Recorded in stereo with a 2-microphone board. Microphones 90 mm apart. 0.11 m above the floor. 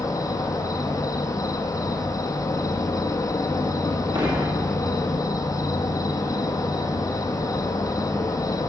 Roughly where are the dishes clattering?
Right.